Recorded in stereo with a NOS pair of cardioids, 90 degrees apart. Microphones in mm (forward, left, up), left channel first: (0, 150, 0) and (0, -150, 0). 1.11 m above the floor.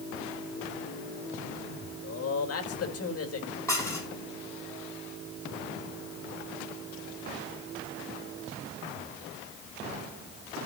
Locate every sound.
2.0 s a man speaking: 50° left, 3.5 m
3.7 s dishes clattering: 10° left, 7.5 m